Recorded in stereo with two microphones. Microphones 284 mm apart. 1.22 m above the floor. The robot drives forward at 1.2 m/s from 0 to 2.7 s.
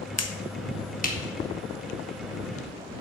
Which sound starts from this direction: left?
A finger snap, at 0.2 s.